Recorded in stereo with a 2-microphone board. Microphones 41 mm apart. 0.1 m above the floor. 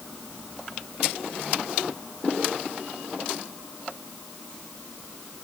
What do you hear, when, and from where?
Only background noise.